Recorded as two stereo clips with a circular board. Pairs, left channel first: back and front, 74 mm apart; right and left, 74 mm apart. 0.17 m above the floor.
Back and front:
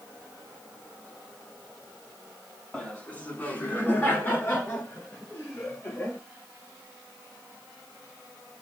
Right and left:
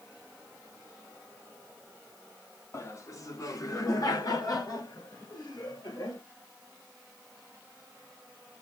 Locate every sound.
2.7 s laughter: 115° right, 1.3 m; by 6.2 s 120° right, 3.5 m